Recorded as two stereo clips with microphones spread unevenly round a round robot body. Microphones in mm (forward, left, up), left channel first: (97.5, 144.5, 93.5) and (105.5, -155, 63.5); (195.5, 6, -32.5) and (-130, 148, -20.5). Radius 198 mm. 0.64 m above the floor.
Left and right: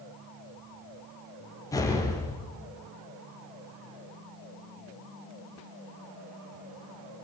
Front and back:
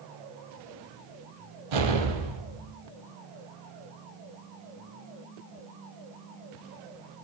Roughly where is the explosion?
Behind.